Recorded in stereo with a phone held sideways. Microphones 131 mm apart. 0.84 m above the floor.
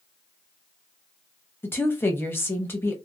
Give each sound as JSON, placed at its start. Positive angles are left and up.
{"t": 1.6, "sound": "a woman speaking", "side_deg": 15, "distance_m": 0.8}